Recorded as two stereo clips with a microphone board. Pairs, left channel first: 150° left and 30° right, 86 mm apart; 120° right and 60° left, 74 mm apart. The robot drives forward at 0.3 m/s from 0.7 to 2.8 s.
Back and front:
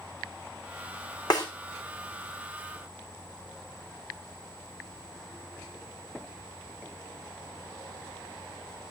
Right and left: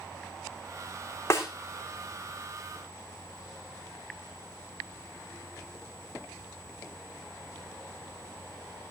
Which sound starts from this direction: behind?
A snare drum, at 1.3 s.